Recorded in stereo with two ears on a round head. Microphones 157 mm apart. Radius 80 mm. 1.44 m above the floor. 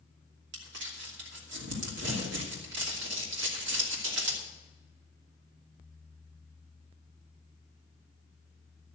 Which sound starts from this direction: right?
Crumpling, at 0.5 s.